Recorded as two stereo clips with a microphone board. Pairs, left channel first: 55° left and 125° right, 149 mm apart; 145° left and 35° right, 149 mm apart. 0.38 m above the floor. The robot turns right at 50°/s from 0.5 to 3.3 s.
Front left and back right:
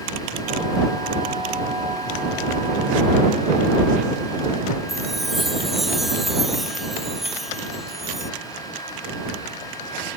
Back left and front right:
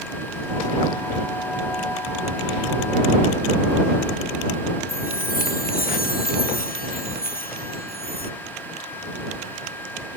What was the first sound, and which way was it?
A chime, 145° left.